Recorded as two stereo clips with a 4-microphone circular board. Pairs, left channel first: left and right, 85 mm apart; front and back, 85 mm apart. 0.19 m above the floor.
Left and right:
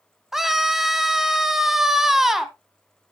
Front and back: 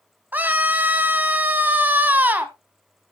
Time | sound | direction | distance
0.3 | a scream | 170° right | 1.0 m